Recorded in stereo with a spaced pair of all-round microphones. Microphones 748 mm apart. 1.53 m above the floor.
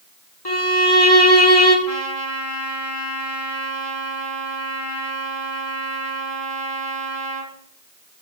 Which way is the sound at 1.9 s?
50° right (ahead or behind).